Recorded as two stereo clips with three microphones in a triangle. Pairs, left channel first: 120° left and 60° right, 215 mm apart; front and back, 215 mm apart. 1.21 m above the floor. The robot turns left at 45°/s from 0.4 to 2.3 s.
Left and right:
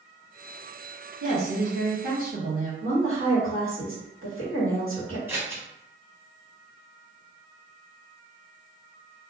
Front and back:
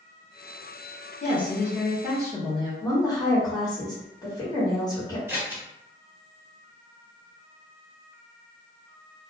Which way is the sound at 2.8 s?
75° right.